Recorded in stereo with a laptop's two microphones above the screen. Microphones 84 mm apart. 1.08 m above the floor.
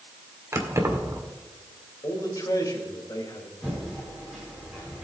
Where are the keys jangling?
35° right (ahead or behind), 2 m.